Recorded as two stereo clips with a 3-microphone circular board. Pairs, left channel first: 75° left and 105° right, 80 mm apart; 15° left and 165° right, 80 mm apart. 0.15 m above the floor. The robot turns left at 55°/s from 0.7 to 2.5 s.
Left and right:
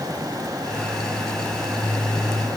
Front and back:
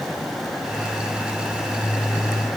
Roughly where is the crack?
No crack in this recording.